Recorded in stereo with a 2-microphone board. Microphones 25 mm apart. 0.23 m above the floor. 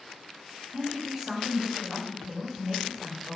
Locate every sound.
0.7 s a woman speaking: 20° right (ahead or behind), 1.1 m